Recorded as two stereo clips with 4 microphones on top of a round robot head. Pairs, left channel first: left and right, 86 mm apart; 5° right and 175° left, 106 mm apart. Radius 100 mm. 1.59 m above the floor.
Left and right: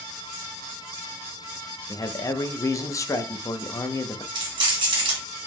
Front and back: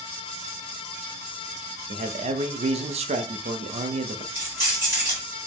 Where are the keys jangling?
115° right, 1.6 m.